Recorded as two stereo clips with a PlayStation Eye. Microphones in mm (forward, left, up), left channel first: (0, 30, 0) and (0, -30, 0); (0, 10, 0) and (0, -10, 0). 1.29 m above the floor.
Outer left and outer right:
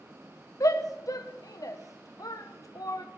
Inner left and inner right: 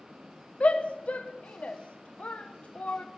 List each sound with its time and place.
0.6 s a shout: 70° left (ahead or behind), 0.8 m